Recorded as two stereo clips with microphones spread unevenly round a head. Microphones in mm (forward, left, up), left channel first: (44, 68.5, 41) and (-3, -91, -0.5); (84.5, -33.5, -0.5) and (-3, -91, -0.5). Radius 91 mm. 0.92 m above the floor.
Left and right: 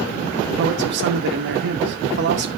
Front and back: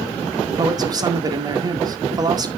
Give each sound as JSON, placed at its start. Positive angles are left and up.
{"t": 0.6, "sound": "a man speaking", "azimuth_deg": -90, "distance_m": 1.9}